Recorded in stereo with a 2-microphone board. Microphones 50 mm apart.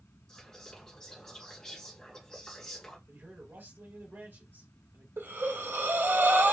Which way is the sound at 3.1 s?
50° right (ahead or behind).